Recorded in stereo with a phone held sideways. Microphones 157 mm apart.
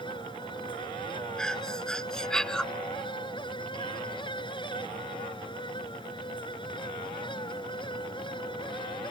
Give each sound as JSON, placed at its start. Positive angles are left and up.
{"t": 0.0, "sound": "a fan", "side_deg": 30}
{"t": 1.4, "sound": "breathing", "side_deg": 5}